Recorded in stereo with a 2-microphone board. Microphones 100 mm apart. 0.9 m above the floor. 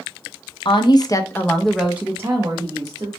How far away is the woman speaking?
About 0.6 m.